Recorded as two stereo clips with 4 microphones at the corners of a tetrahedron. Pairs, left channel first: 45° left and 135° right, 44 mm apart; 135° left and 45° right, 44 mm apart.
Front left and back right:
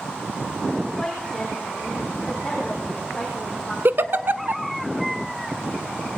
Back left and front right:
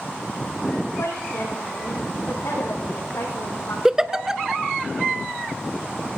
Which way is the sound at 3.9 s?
120° right.